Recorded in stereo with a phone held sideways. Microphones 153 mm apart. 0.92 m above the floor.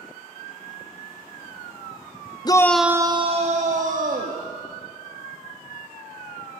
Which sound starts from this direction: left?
A shout, at 2.5 s.